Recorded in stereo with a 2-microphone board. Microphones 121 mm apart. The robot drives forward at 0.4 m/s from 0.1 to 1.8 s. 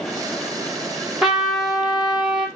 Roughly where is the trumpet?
Centre.